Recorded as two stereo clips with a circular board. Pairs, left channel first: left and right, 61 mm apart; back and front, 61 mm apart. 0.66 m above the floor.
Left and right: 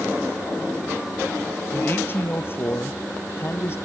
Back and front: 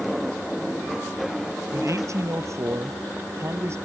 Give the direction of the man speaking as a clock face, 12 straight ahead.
11 o'clock.